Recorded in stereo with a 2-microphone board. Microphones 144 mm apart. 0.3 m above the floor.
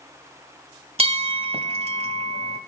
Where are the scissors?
I don't hear scissors.